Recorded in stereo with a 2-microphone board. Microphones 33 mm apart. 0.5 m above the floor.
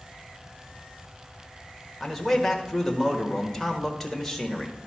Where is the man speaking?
10° left (ahead or behind), 1.4 m.